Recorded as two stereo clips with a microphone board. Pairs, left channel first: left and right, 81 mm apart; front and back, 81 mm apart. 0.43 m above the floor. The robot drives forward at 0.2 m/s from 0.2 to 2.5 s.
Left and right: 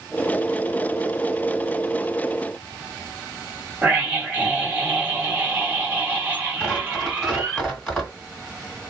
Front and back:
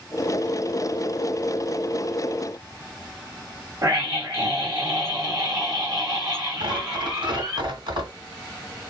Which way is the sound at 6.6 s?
175° right.